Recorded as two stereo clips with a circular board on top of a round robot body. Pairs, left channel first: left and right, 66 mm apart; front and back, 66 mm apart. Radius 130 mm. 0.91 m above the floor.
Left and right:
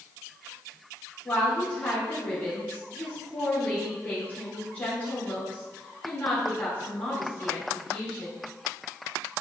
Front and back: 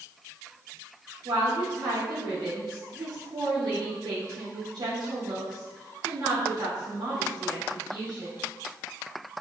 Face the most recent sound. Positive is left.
turn(degrees=160)